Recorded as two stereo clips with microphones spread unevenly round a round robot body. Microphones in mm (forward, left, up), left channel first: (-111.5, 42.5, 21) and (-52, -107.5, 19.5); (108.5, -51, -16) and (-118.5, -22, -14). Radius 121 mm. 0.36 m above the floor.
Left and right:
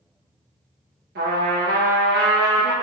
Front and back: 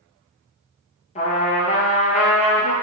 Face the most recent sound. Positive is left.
turn(degrees=-70)